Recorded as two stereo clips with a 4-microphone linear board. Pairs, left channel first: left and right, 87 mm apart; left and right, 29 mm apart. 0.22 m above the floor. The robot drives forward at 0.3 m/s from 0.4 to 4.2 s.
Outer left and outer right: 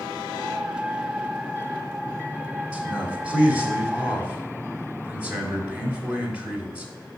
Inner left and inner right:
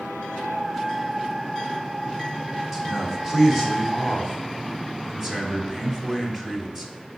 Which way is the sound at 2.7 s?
15° right (ahead or behind).